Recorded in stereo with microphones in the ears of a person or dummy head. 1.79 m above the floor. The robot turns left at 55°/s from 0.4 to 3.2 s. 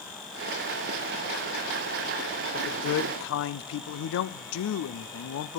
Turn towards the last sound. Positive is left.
turn(degrees=95)